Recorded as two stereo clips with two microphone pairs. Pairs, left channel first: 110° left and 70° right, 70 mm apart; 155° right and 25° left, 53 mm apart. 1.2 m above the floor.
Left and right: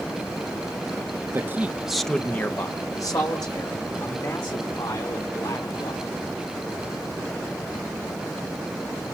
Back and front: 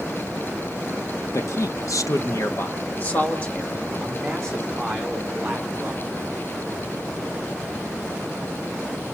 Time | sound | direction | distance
1.3 | a man speaking | 125° right | 1.3 m